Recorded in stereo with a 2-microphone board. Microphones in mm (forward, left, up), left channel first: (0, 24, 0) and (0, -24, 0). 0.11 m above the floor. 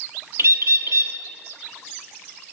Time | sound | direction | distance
0.4 | a bird | 70° right (ahead or behind) | 0.6 m